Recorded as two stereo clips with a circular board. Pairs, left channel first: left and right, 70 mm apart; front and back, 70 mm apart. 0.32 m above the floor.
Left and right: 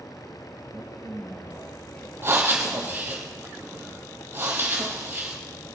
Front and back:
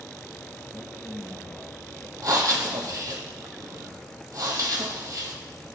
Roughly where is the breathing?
Behind right.